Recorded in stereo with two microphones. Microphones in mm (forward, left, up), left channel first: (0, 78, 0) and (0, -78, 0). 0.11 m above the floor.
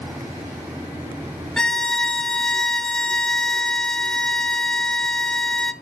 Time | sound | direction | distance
1.6 | a violin | 5° left (ahead or behind) | 0.6 m